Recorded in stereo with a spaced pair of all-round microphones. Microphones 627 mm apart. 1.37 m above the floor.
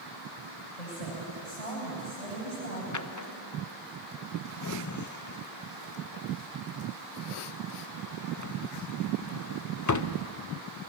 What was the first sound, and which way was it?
A woman speaking, 70° left (ahead or behind).